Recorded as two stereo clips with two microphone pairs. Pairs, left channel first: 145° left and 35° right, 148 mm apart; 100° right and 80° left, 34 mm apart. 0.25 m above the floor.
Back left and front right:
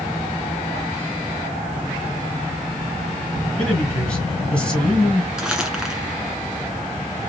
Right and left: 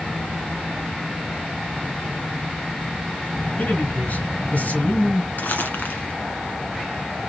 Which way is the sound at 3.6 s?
135° right.